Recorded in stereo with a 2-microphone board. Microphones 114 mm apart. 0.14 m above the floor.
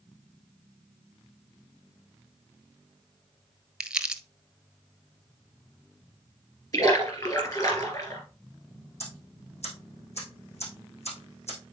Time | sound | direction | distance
3.8 | crumpling | 5° right (ahead or behind) | 0.7 m
6.7 | a splash | 35° left (ahead or behind) | 2.5 m
9.0 | ticking | 75° left (ahead or behind) | 5.5 m